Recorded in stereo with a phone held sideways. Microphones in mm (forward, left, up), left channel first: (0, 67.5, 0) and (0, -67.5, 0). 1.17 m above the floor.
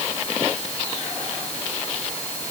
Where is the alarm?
No alarm in this recording.